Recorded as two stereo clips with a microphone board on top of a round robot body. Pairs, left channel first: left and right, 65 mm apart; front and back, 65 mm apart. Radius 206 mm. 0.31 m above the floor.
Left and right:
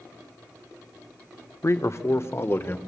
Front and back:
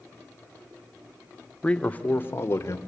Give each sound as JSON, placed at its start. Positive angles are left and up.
{"t": 1.6, "sound": "a man speaking", "azimuth_deg": 70, "distance_m": 1.3}